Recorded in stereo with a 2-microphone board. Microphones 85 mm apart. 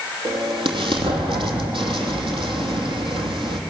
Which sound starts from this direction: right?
An explosion, at 0.2 s.